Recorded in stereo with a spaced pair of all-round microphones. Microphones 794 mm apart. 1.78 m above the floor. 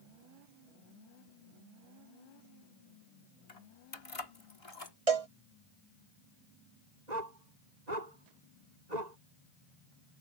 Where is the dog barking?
60° right (ahead or behind).